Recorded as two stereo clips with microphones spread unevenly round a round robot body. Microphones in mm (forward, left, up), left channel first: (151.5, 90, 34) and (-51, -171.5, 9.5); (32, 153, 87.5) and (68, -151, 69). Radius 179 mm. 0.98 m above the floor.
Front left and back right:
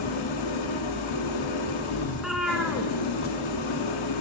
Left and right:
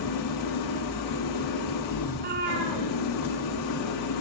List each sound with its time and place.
0.0 s an engine running: 80° left, 1.2 m
2.1 s a cat meowing: 35° right, 1.1 m